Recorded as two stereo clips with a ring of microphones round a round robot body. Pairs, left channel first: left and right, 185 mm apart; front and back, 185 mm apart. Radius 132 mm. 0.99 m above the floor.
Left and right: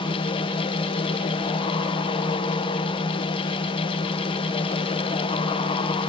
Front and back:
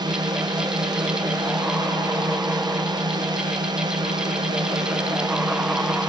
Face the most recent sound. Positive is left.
turn(degrees=135)